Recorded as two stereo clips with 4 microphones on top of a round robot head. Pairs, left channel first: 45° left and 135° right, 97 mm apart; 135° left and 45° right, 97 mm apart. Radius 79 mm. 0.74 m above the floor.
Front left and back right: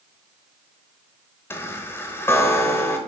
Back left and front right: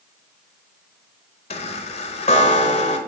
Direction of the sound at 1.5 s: 115° left.